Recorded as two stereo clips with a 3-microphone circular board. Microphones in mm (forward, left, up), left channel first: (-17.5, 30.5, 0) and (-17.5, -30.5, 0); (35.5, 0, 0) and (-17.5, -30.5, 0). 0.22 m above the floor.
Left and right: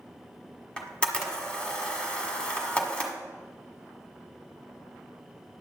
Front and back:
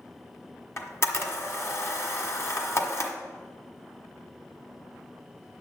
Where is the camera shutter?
25° left, 1.4 m.